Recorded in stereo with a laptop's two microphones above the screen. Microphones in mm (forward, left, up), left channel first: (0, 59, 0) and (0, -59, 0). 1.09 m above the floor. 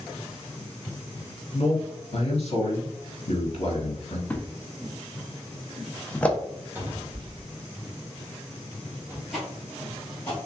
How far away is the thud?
About 0.6 m.